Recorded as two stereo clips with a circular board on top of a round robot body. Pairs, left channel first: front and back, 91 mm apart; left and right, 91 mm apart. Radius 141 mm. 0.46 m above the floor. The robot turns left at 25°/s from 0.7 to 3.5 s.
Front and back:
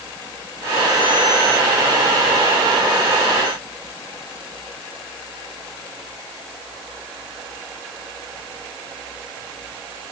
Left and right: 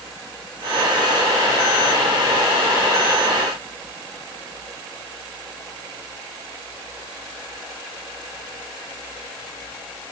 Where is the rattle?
I don't hear a rattle.